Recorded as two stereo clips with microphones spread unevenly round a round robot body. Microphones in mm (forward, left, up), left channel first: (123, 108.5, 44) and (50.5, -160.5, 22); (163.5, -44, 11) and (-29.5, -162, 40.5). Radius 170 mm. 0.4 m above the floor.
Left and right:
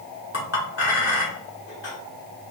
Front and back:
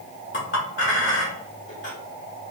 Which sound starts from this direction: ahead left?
A clink, at 0.3 s.